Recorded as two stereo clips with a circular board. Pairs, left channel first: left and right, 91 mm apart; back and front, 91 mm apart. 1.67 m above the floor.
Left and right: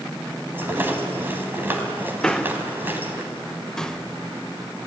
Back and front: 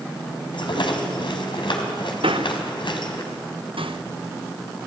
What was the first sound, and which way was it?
A rattle, 155° right.